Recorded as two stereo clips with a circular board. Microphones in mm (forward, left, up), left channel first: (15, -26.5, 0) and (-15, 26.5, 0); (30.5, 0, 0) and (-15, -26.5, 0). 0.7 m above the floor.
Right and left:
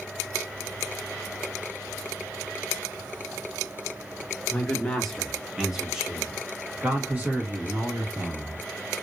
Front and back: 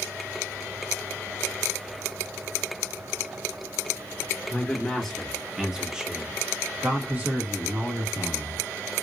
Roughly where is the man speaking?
Ahead.